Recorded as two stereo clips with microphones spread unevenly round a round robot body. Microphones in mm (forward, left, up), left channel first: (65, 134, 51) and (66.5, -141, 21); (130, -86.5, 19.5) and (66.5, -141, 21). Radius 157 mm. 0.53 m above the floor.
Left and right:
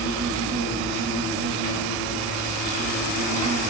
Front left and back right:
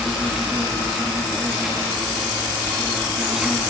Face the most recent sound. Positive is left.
turn(degrees=-55)